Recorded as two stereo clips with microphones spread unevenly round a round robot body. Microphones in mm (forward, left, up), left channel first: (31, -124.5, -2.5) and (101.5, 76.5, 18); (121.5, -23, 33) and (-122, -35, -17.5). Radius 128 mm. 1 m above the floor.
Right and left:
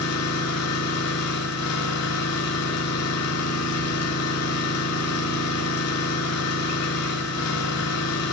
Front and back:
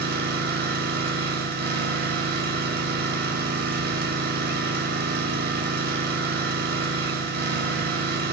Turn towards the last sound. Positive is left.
turn(degrees=-125)